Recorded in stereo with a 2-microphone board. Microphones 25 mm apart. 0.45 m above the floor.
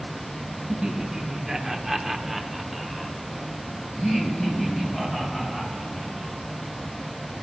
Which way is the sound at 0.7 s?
25° right (ahead or behind).